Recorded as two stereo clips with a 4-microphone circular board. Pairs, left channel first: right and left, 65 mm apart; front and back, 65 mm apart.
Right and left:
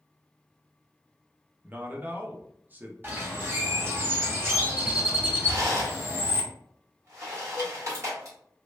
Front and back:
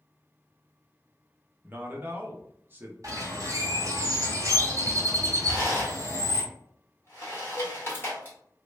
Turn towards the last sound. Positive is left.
turn(degrees=-10)